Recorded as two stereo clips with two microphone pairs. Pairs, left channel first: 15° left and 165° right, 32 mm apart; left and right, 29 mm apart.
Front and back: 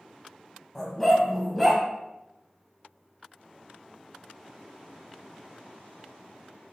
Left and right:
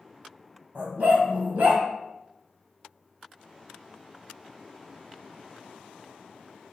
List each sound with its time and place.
0.8 s a dog barking: 65° right, 1.9 m; by 1.8 s 80° right, 1.6 m